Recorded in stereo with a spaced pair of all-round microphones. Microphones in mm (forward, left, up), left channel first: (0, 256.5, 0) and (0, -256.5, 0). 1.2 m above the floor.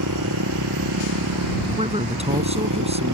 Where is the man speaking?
10° right (ahead or behind).